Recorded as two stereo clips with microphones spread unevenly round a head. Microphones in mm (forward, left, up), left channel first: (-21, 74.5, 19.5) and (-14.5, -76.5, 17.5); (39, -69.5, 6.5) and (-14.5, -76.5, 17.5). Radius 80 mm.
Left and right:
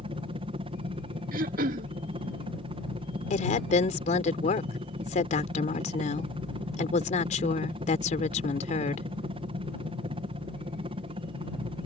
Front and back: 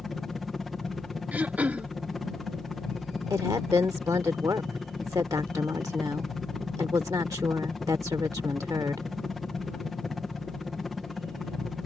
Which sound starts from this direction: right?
A helicopter, at 0.0 s.